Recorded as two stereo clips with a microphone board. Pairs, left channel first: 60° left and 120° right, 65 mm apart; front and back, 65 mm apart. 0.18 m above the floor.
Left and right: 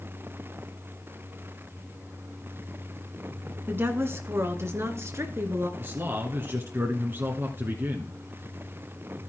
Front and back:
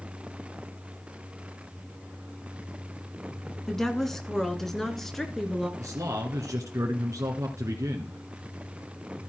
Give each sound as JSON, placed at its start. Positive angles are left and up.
{"t": 3.7, "sound": "a woman speaking", "azimuth_deg": -80, "distance_m": 1.6}
{"t": 5.8, "sound": "a man speaking", "azimuth_deg": -165, "distance_m": 1.8}